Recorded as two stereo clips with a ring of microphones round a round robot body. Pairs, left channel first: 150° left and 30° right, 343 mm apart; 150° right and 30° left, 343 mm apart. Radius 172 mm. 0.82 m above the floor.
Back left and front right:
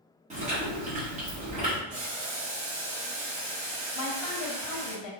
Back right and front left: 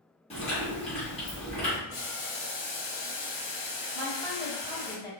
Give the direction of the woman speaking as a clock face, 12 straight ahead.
8 o'clock.